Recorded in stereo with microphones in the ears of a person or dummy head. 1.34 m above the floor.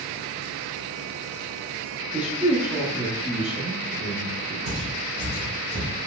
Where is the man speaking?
10° right (ahead or behind), 0.7 m.